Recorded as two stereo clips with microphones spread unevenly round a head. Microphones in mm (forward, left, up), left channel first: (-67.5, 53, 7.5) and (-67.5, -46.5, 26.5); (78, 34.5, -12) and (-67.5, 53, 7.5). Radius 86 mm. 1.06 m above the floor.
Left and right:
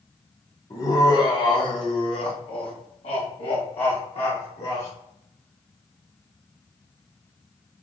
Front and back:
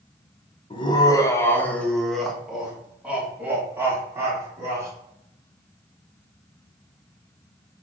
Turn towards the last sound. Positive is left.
turn(degrees=100)